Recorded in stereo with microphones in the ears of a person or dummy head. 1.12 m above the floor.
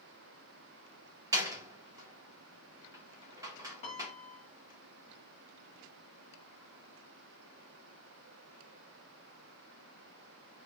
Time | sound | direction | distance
1.3 | a door slam | 15° right (ahead or behind) | 0.8 m
3.8 | a piano | 35° left (ahead or behind) | 1.3 m